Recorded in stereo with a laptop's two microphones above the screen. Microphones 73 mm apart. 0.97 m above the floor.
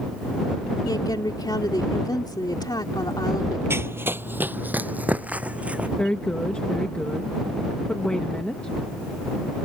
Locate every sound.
0.8 s a woman speaking: 70° left (ahead or behind)
3.7 s running footsteps: 35° right (ahead or behind); by 5.9 s 20° right (ahead or behind)
6.0 s a woman speaking: 15° left (ahead or behind)